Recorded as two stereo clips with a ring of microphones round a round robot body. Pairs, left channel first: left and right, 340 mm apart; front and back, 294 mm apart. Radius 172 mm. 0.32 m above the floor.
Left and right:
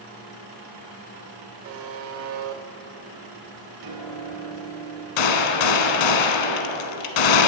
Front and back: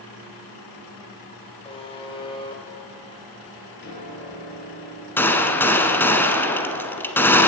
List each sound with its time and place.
1.6 s a buzzer: 65° right, 0.9 m
3.8 s a piano: 60° right, 2.5 m
5.2 s a gunshot: 85° left, 1.0 m